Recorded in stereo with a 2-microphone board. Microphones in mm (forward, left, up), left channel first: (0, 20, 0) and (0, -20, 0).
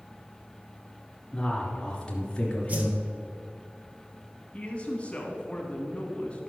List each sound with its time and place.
1.3 s a man speaking: 20° left (ahead or behind), 2.5 m
2.7 s a whoosh: 40° right (ahead or behind), 1.4 m
4.5 s a man speaking: 30° left (ahead or behind), 1.7 m